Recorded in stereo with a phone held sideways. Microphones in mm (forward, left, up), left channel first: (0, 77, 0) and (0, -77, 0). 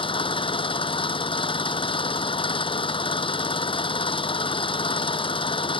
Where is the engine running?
35° left (ahead or behind).